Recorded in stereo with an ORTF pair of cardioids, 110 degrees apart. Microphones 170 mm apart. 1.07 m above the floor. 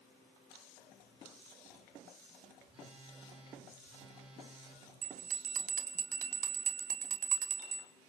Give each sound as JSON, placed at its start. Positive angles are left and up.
{"t": 2.7, "sound": "a phone buzzing", "azimuth_deg": -30, "distance_m": 6.5}
{"t": 5.0, "sound": "a bell", "azimuth_deg": -50, "distance_m": 1.9}